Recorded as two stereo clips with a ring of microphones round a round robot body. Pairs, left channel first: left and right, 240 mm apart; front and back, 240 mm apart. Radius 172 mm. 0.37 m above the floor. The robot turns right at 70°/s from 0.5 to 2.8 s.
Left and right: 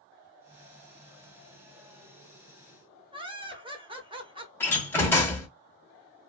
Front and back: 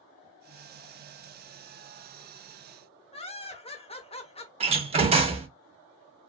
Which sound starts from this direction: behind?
A door slam, at 4.6 s.